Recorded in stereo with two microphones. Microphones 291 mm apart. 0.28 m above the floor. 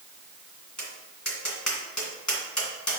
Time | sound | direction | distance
0.8 | tapping | 70° left (ahead or behind) | 1.9 m